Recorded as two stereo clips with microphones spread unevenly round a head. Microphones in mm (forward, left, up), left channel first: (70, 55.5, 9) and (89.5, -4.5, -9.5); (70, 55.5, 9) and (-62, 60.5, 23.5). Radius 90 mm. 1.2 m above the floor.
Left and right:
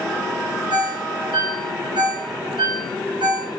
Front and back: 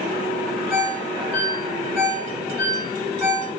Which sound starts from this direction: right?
A ringtone, at 0.7 s.